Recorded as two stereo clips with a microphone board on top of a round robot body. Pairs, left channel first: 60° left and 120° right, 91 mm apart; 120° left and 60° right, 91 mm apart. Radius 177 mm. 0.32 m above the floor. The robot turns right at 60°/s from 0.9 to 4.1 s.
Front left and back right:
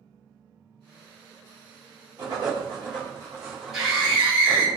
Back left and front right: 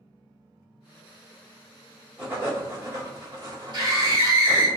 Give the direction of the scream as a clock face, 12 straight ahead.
1 o'clock.